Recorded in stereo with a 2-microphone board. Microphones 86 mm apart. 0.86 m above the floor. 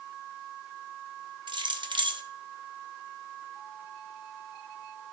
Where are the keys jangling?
60° right (ahead or behind), 0.6 m.